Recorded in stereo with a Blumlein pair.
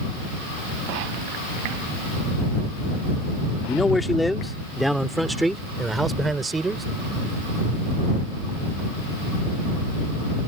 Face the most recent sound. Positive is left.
turn(degrees=-15)